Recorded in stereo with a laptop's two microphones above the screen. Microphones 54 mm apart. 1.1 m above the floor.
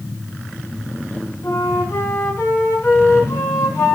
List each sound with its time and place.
1.4 s a flute: 55° left (ahead or behind), 4.5 m